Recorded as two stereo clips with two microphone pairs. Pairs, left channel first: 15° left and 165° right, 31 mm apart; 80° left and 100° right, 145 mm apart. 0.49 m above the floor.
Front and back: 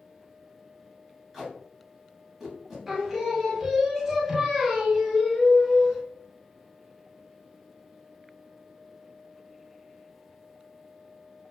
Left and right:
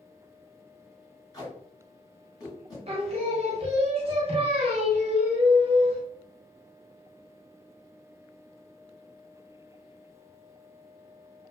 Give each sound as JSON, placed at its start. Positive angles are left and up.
{"t": 1.3, "sound": "tape being pulled", "azimuth_deg": 110, "distance_m": 1.2}
{"t": 2.9, "sound": "singing", "azimuth_deg": -85, "distance_m": 0.6}